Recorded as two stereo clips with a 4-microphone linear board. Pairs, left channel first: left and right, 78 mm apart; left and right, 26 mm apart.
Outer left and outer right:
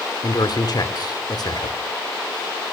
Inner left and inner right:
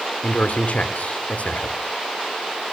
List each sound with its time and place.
0.2 s a man speaking: 60° left (ahead or behind), 2.5 m